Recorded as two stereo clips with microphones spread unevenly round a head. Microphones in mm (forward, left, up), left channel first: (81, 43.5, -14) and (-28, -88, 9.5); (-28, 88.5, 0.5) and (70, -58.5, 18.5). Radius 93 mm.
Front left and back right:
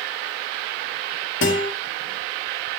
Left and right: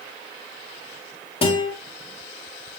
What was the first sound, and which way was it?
A guitar, 65° left.